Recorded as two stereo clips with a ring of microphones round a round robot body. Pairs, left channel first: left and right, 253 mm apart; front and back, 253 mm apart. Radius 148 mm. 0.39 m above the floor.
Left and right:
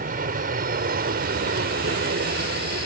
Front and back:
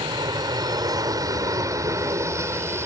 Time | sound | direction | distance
0.0 | an aircraft | 120° right | ?